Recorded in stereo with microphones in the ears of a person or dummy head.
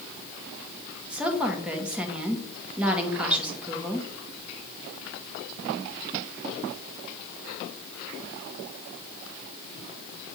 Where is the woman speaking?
10° right (ahead or behind), 1.3 m.